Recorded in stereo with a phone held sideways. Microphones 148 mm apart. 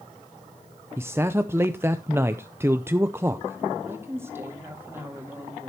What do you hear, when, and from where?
1.0 s a man speaking: 15° right (ahead or behind), 0.5 m
3.9 s a woman speaking: 15° right (ahead or behind), 2 m